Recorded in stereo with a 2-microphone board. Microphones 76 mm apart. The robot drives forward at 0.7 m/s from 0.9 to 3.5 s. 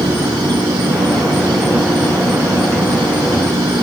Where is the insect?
80° right; by 3.8 s 85° right.